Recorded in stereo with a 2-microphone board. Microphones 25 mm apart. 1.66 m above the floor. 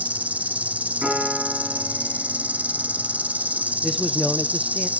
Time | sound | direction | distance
0.0 | an insect | 80° right | 0.8 m
1.0 | a piano | 40° right (ahead or behind) | 9 m
3.8 | a man speaking | 10° right (ahead or behind) | 0.6 m